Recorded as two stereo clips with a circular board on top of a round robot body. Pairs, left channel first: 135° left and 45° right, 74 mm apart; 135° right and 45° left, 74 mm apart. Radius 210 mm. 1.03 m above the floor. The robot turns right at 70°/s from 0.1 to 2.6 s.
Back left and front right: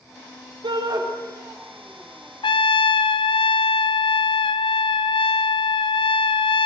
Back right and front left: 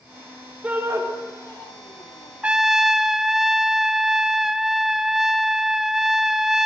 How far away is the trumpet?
About 0.7 m.